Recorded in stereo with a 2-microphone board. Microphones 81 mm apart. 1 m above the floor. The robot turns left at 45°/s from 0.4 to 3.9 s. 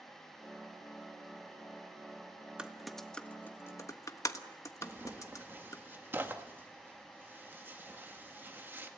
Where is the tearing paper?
25° right (ahead or behind), 1.9 m.